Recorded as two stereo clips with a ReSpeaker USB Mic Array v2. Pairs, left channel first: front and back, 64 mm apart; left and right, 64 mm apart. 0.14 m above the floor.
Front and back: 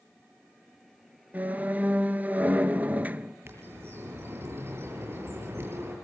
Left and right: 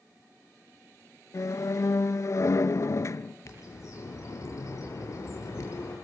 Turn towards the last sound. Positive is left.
turn(degrees=130)